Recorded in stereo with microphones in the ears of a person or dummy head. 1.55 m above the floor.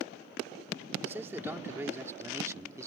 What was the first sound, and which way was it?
A man speaking, 10° right (ahead or behind).